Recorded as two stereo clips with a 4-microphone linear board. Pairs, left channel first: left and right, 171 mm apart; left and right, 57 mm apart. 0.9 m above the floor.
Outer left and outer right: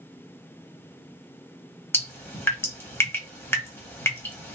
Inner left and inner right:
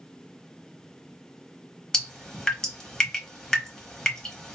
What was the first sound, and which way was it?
Dripping, 15° left (ahead or behind).